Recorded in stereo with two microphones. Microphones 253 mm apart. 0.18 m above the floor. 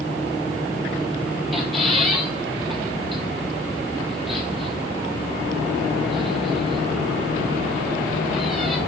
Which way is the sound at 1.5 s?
Centre (ahead or behind).